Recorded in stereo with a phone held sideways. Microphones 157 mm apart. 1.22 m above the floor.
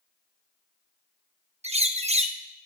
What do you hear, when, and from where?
1.6 s a bird: 45° right (ahead or behind), 0.8 m